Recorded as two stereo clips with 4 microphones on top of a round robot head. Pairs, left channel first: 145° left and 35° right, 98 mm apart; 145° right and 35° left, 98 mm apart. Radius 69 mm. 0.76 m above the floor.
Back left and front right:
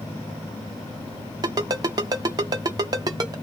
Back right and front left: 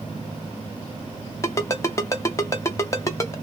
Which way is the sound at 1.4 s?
85° right.